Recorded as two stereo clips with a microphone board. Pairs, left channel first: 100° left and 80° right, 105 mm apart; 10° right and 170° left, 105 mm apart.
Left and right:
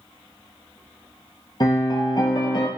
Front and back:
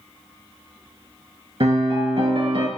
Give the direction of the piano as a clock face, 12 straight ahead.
7 o'clock.